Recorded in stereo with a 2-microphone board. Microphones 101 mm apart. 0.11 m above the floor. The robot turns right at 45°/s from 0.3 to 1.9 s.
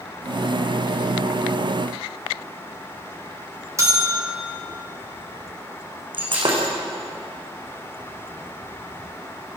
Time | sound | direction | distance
3.8 | a bell | 30° right (ahead or behind) | 4 m
6.1 | breaking glass | 55° right (ahead or behind) | 5 m